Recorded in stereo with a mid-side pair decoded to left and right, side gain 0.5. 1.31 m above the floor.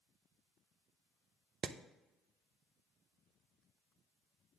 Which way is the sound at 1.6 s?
45° right.